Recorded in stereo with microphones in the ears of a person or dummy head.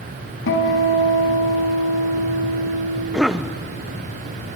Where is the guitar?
65° left (ahead or behind), 3 m.